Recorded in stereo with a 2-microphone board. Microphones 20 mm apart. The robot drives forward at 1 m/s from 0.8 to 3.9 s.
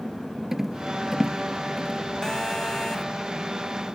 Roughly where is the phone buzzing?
Left.